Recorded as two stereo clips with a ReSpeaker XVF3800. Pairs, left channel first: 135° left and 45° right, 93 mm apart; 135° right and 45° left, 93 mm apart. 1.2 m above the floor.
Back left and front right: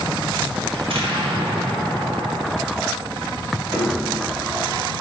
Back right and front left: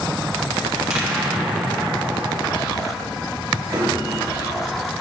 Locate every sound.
0.7 s an explosion: 40° right, 1.3 m
3.7 s a piano: 10° left, 1.2 m